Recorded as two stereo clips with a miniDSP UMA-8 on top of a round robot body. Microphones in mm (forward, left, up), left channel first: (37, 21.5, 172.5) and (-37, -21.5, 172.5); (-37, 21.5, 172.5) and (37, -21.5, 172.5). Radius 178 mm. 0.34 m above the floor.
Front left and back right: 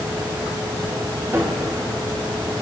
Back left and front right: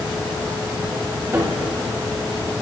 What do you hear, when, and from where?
1.3 s a cupboard door: 90° right, 2 m